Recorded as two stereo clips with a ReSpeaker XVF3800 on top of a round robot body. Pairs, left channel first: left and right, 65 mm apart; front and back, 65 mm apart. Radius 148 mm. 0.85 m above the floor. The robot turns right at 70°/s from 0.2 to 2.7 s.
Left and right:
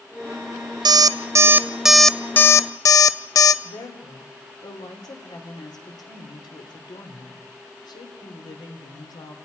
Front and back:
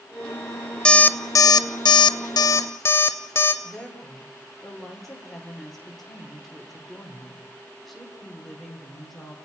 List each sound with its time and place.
0.8 s an alarm clock: 75° right, 0.5 m; by 3.5 s 55° left, 0.5 m
3.6 s a woman speaking: 90° left, 3.5 m